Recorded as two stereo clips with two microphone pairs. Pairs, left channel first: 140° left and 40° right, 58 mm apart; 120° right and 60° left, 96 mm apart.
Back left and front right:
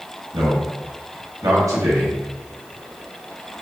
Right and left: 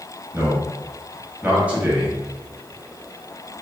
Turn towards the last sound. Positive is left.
turn(degrees=-15)